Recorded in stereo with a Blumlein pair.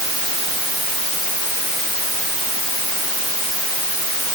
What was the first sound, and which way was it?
Only background noise.